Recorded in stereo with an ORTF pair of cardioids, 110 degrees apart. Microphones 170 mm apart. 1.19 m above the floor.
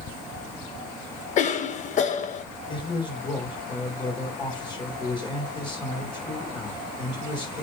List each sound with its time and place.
1.4 s a cough: 50° left, 1.3 m
2.7 s a man speaking: 30° left, 3.5 m